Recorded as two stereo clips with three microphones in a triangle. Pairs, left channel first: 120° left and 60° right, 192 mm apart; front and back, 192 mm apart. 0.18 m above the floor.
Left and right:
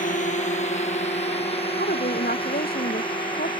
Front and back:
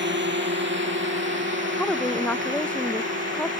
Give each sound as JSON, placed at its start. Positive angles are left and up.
{"t": 0.0, "sound": "a drone", "azimuth_deg": 165}
{"t": 1.8, "sound": "a woman speaking", "azimuth_deg": 85}